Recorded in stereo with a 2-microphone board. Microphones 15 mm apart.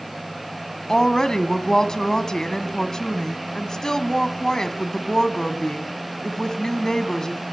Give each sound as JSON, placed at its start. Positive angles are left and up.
{"t": 0.9, "sound": "a woman speaking", "side_deg": 50, "distance_m": 1.6}